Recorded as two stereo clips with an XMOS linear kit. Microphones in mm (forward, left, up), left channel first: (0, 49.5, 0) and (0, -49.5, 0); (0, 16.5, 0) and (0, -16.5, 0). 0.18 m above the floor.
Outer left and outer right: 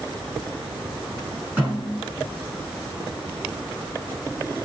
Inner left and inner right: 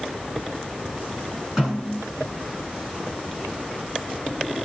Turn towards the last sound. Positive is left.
turn(degrees=-15)  # may be behind; listen again after turning